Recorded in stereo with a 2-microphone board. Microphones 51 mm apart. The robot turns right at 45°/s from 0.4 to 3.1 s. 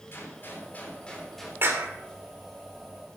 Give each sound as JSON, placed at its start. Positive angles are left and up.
{"t": 0.1, "sound": "a gunshot", "azimuth_deg": 130, "distance_m": 3.5}
{"t": 1.6, "sound": "a clap", "side_deg": -50, "distance_m": 2.5}